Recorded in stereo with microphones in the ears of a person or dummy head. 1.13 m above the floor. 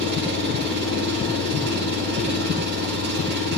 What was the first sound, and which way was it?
An engine running, 60° right (ahead or behind).